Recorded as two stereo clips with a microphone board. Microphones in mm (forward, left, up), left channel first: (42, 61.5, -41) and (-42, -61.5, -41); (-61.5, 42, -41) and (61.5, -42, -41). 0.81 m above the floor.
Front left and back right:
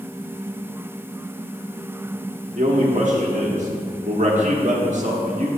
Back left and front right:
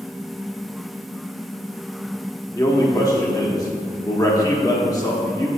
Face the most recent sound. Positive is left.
turn(degrees=-150)